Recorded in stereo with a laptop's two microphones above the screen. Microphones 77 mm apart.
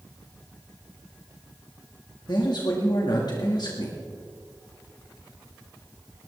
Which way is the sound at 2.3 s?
65° left (ahead or behind).